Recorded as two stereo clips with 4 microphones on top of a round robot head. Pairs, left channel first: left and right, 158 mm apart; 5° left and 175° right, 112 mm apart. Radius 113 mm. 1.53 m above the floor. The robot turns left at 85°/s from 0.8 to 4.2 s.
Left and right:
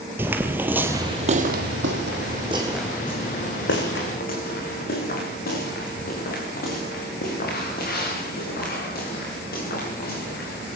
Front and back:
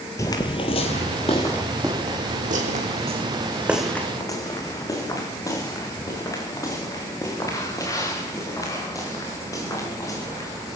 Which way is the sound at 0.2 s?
30° right.